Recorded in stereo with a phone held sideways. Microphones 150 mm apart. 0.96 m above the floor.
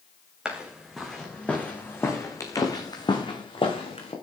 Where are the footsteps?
5° right (ahead or behind), 4 m; by 4.1 s 40° left (ahead or behind), 4.5 m.